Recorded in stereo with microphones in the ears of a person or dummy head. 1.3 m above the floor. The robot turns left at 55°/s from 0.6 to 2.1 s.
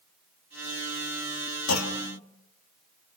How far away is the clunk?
About 2.5 m.